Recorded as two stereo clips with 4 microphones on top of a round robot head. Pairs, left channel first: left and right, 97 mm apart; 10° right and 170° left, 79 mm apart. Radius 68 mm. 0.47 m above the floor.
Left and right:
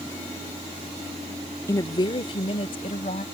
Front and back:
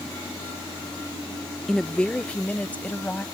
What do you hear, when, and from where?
1.7 s a woman speaking: 70° left; by 3.2 s 60° left